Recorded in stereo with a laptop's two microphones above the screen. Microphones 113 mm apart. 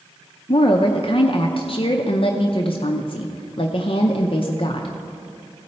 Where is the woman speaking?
50° left (ahead or behind), 0.5 m.